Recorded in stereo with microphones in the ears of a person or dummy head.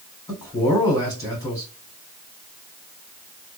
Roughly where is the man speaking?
Left.